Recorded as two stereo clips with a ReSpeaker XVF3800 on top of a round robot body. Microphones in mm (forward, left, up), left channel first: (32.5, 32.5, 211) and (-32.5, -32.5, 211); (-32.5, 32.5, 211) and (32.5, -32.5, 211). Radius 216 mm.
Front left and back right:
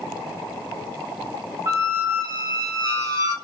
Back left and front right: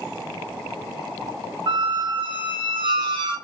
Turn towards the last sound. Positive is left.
turn(degrees=-80)